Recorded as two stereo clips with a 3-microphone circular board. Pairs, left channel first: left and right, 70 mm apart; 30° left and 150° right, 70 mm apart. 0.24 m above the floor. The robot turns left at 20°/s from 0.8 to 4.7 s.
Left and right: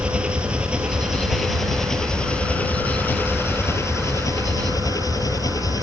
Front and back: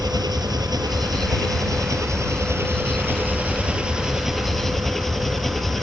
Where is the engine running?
165° right; by 5.8 s 115° left.